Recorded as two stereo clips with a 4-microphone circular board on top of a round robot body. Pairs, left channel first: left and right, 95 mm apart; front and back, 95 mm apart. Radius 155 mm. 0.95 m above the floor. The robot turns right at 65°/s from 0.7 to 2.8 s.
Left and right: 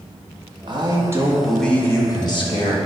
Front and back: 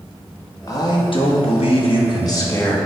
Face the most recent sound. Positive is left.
turn(degrees=80)